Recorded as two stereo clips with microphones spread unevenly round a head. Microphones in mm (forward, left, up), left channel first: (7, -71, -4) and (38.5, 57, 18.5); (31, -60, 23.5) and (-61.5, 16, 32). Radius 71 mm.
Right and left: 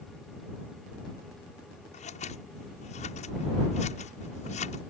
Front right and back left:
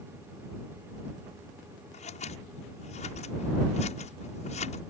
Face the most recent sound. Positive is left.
turn(degrees=-65)